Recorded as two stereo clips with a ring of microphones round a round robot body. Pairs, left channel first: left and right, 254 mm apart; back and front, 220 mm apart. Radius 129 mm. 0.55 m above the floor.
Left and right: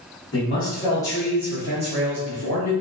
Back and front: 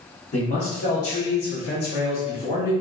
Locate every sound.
0.3 s a man speaking: 130° left, 1.0 m; by 2.7 s 125° right, 1.3 m